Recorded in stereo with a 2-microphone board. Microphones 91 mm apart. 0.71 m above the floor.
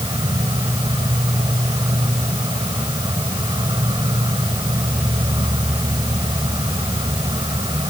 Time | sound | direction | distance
0.0 | an insect | 55° right (ahead or behind) | ?